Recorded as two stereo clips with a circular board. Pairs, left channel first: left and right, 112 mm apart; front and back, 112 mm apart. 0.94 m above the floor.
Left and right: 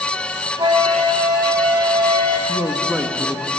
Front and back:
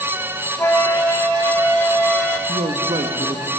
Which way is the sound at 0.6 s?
60° right.